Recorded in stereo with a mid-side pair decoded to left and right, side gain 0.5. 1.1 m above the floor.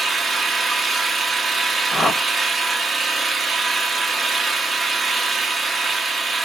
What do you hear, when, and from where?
0.0 s an engine running: 35° right, 0.8 m
1.9 s a whoosh: 15° left, 0.9 m